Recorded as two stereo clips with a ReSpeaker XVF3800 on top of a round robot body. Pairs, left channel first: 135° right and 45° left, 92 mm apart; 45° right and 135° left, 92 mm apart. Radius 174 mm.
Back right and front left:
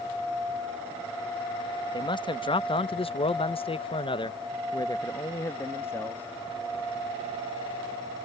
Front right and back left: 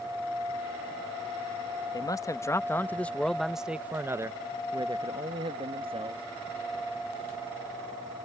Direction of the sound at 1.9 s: 95° right.